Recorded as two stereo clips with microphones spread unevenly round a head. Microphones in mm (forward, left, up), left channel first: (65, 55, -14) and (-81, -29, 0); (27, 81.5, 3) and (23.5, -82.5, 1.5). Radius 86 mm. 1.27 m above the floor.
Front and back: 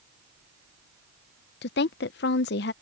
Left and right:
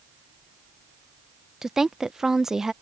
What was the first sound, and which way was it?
A woman speaking, 5° right.